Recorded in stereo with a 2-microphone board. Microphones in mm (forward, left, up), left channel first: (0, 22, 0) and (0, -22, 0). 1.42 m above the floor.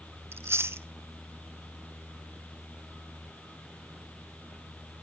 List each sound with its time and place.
0.3 s chewing: 70° right (ahead or behind), 0.5 m